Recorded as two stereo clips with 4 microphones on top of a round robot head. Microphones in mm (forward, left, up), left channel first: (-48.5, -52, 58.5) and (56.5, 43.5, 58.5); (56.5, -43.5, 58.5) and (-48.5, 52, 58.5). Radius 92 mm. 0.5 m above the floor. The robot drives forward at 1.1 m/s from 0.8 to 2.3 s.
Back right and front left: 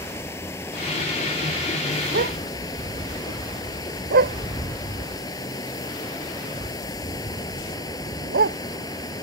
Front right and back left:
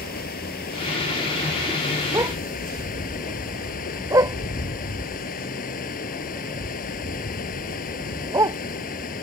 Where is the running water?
65° right; by 9.2 s 70° right.